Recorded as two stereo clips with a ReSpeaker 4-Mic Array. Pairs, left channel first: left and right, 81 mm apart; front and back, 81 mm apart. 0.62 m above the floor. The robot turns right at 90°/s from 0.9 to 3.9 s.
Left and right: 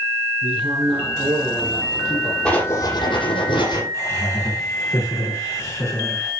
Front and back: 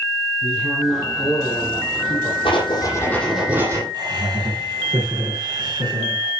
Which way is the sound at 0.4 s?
100° right.